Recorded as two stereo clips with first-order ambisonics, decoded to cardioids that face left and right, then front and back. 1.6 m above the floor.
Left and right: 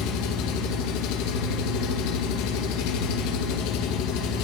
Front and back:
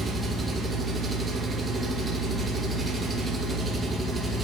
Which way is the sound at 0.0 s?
100° left.